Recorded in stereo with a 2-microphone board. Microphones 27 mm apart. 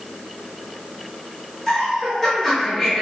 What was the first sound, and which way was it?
Laughter, 10° left (ahead or behind).